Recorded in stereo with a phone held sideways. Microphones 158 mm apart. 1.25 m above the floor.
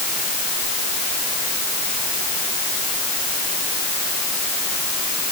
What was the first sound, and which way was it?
Only background noise.